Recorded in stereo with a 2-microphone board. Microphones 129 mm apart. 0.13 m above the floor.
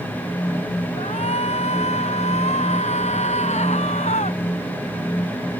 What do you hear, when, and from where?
1.0 s a shout: 60° left (ahead or behind); by 4.4 s 65° left (ahead or behind)